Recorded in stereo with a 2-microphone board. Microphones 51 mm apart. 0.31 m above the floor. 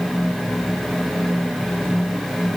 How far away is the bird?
I don't hear a bird.